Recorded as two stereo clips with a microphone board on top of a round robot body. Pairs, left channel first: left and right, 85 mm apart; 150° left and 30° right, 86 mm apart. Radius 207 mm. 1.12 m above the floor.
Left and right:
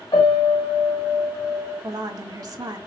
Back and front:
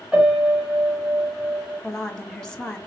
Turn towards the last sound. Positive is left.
turn(degrees=-130)